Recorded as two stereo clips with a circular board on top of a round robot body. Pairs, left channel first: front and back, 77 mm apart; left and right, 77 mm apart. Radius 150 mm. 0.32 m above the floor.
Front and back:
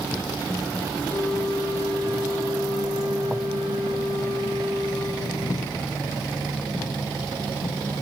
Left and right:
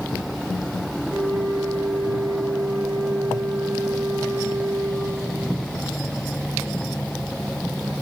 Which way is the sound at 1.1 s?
160° left.